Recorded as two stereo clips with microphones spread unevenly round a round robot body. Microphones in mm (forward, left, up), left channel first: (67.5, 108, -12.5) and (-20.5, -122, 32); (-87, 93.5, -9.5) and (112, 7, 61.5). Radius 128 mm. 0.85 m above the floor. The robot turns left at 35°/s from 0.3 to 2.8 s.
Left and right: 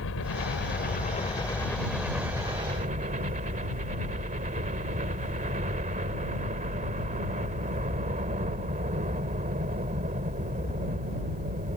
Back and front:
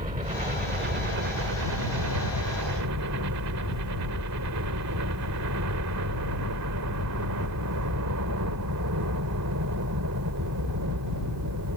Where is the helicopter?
35° left; by 11.8 s 50° right.